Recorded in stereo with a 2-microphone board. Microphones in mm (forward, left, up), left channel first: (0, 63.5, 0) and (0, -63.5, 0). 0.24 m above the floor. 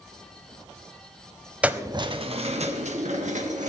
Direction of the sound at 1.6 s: 10° right (ahead or behind).